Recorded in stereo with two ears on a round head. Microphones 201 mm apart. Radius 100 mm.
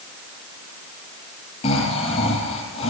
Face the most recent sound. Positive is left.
turn(degrees=25)  # may be behind; listen again after turning